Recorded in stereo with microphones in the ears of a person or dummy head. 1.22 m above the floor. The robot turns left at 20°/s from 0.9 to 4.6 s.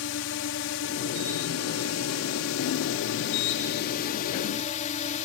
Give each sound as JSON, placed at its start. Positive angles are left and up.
{"t": 0.0, "sound": "a drone", "azimuth_deg": 115}